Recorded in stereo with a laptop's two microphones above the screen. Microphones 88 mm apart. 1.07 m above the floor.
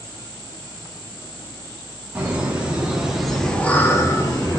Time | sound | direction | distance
2.1 | laughter | 15° right (ahead or behind) | 1.5 m